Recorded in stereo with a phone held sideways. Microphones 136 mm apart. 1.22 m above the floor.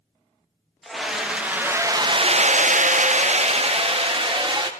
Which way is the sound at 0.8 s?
Centre (ahead or behind).